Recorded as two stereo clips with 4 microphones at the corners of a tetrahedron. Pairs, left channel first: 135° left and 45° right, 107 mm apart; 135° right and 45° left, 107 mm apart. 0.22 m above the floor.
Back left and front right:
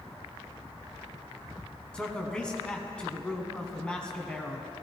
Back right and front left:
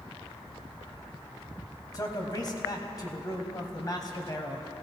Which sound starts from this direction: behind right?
A man speaking, at 1.9 s.